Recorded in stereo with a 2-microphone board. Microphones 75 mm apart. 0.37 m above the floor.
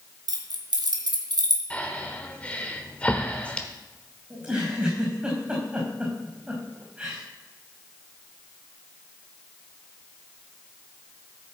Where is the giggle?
20° right (ahead or behind), 5 m.